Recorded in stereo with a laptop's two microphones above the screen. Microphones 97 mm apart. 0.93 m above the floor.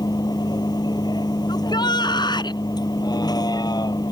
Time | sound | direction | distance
0.0 | a vehicle | 45° left (ahead or behind) | ?
1.5 | a shout | 50° left (ahead or behind) | ?